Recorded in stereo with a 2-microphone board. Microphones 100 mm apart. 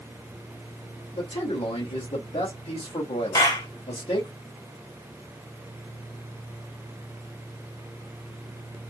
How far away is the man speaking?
About 1.5 m.